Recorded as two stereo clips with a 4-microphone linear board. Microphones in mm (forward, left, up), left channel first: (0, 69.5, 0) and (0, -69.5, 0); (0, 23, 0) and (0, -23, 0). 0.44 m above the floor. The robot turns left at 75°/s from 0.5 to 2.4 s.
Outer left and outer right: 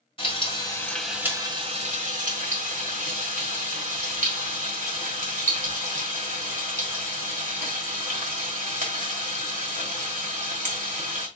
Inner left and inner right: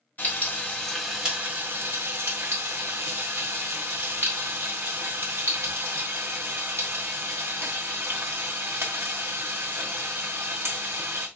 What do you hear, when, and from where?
0.2 s frying: 40° left, 1.9 m; by 11.3 s 100° right, 1.9 m